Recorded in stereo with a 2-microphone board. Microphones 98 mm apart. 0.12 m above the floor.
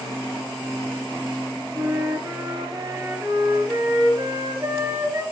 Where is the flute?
40° right (ahead or behind), 1.6 m.